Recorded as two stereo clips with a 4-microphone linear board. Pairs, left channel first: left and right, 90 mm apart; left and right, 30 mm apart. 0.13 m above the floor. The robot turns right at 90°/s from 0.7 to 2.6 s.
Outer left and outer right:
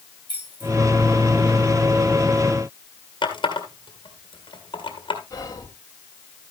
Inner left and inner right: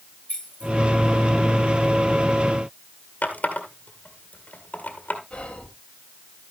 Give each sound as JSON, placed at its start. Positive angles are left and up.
{"t": 0.3, "sound": "keys jangling", "side_deg": 50, "distance_m": 8.0}
{"t": 3.2, "sound": "a running tap", "side_deg": 60, "distance_m": 1.9}
{"t": 5.3, "sound": "whispering", "side_deg": 40, "distance_m": 2.5}